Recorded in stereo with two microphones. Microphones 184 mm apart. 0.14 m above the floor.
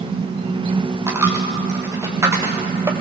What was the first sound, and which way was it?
A dropped coin, 15° right (ahead or behind).